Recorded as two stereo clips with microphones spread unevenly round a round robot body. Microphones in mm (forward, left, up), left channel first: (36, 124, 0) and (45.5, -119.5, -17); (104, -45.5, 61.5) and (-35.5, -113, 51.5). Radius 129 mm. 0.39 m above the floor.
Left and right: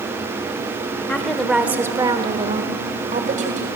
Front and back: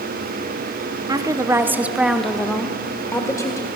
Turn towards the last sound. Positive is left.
turn(degrees=-40)